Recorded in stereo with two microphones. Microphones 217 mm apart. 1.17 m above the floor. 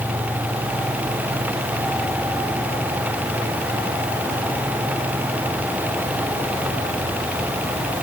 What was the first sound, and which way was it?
Only background noise.